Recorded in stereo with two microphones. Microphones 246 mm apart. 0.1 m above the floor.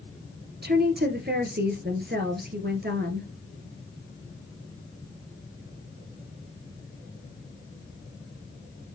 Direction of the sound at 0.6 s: 45° right (ahead or behind).